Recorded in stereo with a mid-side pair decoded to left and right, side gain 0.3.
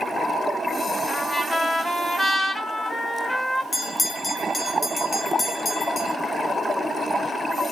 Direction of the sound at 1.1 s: 40° left.